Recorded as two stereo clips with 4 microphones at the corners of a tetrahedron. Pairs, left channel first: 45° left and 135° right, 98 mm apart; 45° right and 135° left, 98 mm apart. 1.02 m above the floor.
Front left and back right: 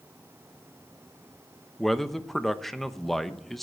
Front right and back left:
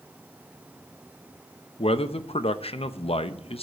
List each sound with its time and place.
1.8 s a man speaking: 45° right, 0.8 m